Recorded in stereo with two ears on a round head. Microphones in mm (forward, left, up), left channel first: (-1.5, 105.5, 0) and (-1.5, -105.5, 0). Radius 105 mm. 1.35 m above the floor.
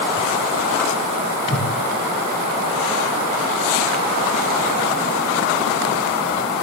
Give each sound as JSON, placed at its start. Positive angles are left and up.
{"t": 1.5, "sound": "a whoosh", "side_deg": 40, "distance_m": 3.5}